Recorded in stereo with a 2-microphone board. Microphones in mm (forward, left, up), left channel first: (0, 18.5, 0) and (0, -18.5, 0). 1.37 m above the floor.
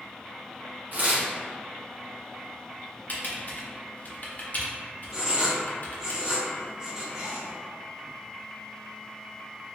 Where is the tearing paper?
45° right (ahead or behind), 1.0 m.